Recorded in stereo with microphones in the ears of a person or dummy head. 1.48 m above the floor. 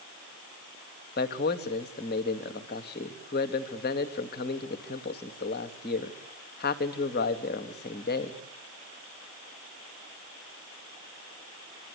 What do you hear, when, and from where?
1.2 s a man speaking: 50° left (ahead or behind), 2.5 m